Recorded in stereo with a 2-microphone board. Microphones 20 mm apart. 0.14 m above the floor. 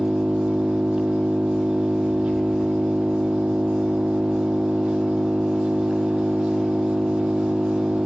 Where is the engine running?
75° right (ahead or behind), 2.5 m.